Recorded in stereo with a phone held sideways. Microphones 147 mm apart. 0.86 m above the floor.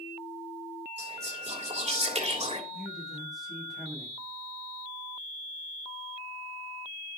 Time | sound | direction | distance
1.0 | whispering | 50° right (ahead or behind) | 3 m
2.7 | a man speaking | centre (ahead or behind) | 5.5 m